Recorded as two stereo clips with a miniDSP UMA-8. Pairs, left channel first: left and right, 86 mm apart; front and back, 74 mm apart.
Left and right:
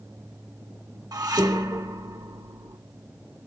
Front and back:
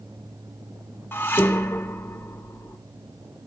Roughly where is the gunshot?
I don't hear a gunshot.